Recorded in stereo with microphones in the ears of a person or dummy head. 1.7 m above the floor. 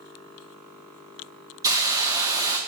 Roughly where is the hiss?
Centre.